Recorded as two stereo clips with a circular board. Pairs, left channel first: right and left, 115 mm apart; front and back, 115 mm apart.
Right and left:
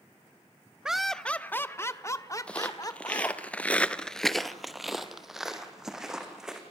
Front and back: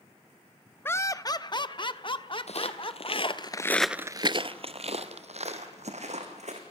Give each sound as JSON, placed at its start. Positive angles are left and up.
{"t": 0.8, "sound": "laughter", "azimuth_deg": 20, "distance_m": 0.5}
{"t": 2.5, "sound": "footsteps", "azimuth_deg": -10, "distance_m": 1.6}